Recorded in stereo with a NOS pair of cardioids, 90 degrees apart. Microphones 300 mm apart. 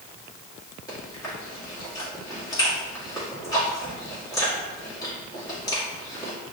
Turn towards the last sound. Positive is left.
turn(degrees=10)